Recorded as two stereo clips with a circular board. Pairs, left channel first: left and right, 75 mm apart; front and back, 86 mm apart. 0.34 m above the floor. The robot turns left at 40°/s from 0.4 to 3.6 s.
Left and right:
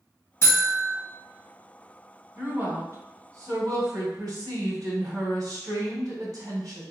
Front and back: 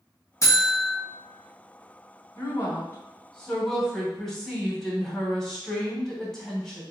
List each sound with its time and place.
0.4 s a buzzer: 45° left, 1.7 m; by 0.9 s 20° left, 1.7 m
2.4 s a woman speaking: 35° right, 2 m; by 6.8 s 85° right, 2 m